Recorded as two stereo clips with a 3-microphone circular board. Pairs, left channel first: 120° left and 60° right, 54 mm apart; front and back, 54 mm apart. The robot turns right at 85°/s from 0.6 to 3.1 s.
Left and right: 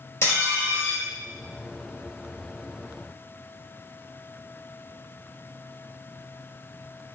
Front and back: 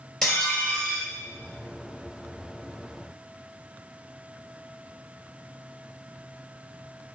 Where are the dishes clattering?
80° left, 2.5 m; by 1.1 s 120° left, 2.5 m.